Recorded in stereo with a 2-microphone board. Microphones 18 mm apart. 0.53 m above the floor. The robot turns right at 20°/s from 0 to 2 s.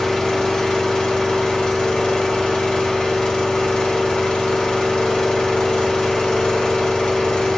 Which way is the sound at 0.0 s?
35° left.